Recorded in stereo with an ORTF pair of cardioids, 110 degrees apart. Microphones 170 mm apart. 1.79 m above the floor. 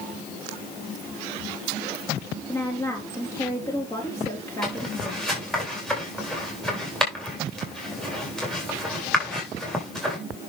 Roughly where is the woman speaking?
Ahead.